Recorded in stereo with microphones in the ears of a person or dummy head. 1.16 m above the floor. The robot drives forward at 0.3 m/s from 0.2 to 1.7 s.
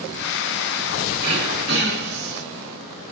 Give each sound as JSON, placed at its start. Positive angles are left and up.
{"t": 1.2, "sound": "throat clearing", "side_deg": -60, "distance_m": 2.0}